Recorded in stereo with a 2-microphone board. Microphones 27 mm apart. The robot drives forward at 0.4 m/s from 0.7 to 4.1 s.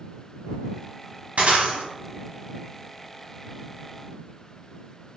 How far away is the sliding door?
I don't hear a sliding door.